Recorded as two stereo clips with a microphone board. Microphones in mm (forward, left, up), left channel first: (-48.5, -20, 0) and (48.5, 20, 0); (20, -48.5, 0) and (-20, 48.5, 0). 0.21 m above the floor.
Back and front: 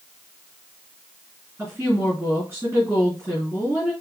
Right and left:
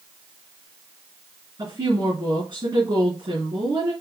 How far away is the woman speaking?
About 3 m.